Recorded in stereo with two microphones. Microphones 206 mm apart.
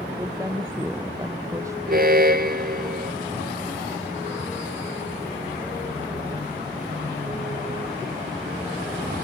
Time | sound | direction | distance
0.2 | a woman speaking | 15° right (ahead or behind) | ?
1.9 | an alarm | 50° right (ahead or behind) | ?